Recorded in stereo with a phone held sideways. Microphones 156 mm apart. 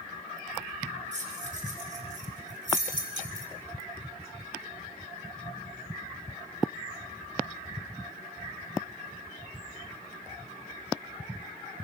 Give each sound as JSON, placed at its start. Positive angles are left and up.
{"t": 1.1, "sound": "keys jangling", "side_deg": -50, "distance_m": 4.0}